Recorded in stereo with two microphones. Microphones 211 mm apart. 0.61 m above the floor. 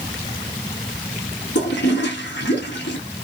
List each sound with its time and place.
1.6 s a toilet flushing: 65° left (ahead or behind), 1.1 m